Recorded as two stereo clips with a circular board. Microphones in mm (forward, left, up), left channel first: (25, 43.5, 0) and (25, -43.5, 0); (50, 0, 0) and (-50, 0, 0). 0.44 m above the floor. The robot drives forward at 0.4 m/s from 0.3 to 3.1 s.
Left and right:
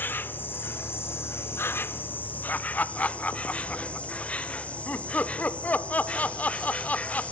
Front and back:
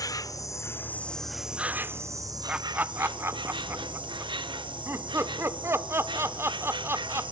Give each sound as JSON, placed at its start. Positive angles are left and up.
{"t": 0.0, "sound": "an insect", "azimuth_deg": 30, "distance_m": 0.7}
{"t": 2.5, "sound": "laughter", "azimuth_deg": 115, "distance_m": 0.9}